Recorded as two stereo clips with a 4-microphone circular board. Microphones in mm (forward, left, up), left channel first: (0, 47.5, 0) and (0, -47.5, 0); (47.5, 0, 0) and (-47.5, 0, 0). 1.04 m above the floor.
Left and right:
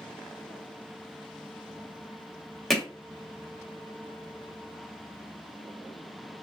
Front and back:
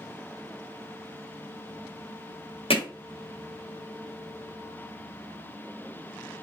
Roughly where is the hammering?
Ahead.